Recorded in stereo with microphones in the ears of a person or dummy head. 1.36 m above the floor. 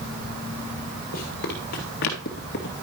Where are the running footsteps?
50° left (ahead or behind), 2.5 m.